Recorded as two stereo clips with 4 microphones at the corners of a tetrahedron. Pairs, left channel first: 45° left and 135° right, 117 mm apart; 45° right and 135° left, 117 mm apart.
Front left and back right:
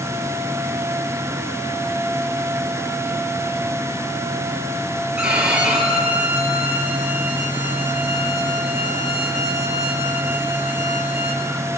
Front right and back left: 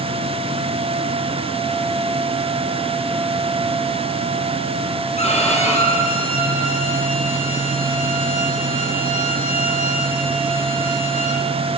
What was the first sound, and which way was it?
A violin, 55° right.